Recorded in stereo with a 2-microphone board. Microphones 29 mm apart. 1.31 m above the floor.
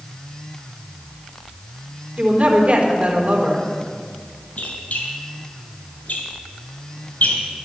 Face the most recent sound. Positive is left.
turn(degrees=65)  # may be behind; listen again after turning